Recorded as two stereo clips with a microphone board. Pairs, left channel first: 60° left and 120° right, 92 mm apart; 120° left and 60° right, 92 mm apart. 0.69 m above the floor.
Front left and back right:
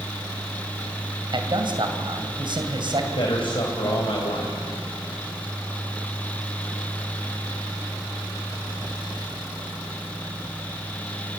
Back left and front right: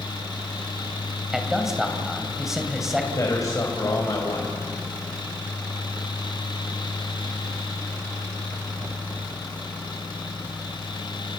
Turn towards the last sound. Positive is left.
turn(degrees=70)